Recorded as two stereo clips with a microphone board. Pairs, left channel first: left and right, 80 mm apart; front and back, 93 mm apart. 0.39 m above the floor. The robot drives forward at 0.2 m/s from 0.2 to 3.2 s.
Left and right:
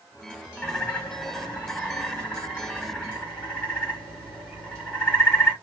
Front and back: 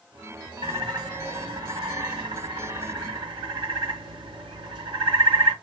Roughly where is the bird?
Behind.